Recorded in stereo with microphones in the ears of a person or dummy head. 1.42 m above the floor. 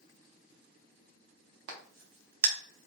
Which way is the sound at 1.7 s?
80° right.